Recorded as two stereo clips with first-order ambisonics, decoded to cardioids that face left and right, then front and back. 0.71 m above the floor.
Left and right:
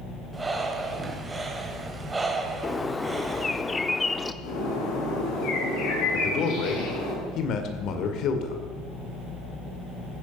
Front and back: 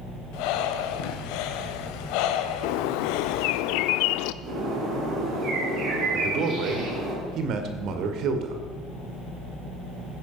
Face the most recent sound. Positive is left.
turn(degrees=135)